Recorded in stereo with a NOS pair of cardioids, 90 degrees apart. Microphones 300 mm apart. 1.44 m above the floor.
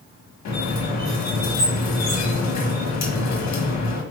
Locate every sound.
0.5 s a squeak: 60° left, 1.6 m